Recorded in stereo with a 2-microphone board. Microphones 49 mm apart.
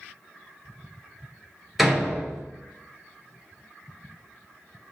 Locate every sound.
1.8 s a door slam: centre (ahead or behind), 1.8 m